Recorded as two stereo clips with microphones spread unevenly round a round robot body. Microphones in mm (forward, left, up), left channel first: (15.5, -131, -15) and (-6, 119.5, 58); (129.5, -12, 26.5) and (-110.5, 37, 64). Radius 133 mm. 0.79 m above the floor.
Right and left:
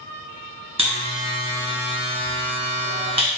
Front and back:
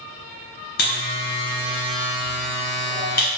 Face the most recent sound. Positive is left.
turn(degrees=40)